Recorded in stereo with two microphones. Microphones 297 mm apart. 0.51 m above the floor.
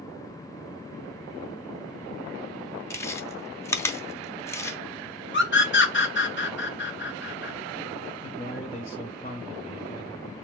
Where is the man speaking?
30° left (ahead or behind), 2.5 m.